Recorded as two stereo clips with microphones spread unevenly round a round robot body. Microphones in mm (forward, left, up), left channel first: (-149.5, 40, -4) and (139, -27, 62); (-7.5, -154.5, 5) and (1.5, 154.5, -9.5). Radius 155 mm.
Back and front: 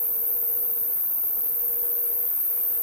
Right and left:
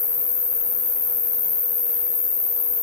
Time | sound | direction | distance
0.0 | an insect | 140° right | 2.5 m